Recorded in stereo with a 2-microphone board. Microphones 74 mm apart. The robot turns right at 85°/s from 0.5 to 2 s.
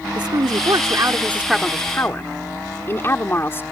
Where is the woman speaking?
95° right; by 3.6 s 35° left.